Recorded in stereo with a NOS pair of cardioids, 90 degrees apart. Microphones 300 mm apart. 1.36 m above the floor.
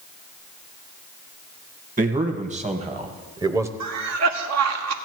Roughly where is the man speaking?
Ahead right.